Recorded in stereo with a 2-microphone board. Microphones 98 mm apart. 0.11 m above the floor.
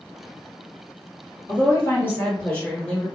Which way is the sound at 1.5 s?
30° left (ahead or behind).